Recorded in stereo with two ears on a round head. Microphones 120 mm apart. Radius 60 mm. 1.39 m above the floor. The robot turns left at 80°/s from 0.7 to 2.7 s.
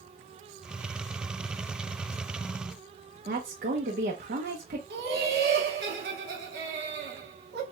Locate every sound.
3.2 s a woman speaking: 75° right (ahead or behind), 1.1 m
4.9 s laughter: 85° right, 1.4 m